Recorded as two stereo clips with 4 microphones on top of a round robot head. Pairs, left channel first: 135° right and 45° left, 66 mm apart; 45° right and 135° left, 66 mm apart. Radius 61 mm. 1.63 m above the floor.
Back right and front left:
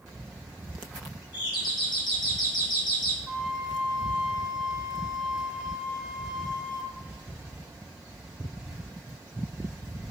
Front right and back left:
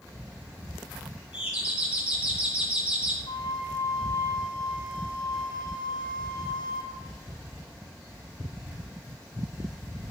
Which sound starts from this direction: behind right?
A doorbell, at 1.3 s.